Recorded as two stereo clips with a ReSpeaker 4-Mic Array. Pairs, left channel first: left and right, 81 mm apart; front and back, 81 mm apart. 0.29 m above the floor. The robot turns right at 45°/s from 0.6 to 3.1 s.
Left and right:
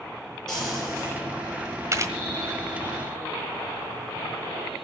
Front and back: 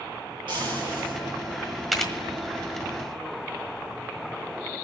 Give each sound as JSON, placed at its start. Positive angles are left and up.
{"t": 0.5, "sound": "frying", "azimuth_deg": 175, "distance_m": 6.5}
{"t": 1.9, "sound": "a camera shutter", "azimuth_deg": -90, "distance_m": 1.5}